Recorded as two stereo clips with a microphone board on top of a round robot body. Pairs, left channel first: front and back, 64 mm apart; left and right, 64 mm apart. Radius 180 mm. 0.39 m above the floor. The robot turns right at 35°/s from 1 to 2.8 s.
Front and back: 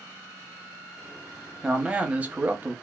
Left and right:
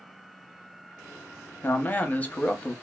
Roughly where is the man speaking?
Behind left.